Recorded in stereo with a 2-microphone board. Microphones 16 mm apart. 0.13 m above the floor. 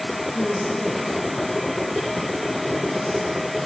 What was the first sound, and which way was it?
A woman speaking, 15° left (ahead or behind).